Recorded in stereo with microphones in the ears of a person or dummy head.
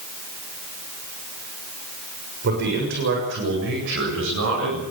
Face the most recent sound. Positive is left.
turn(degrees=-65)  # may be behind; listen again after turning